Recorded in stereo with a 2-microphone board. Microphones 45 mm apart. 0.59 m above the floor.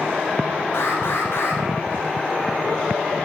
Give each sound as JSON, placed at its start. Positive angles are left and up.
{"t": 0.7, "sound": "an alarm", "side_deg": 60, "distance_m": 5.5}